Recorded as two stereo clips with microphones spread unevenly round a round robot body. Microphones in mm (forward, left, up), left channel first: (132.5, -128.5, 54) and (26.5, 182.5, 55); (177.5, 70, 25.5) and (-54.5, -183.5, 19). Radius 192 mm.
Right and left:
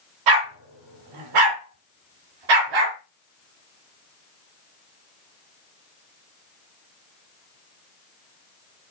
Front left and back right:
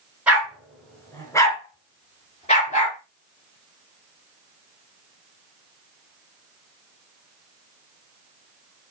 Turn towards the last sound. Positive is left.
turn(degrees=120)